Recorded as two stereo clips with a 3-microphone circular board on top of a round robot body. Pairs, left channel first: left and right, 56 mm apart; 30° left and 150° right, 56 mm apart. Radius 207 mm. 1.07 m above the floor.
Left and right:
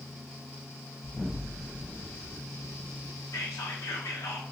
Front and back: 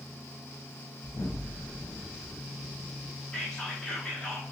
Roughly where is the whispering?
Left.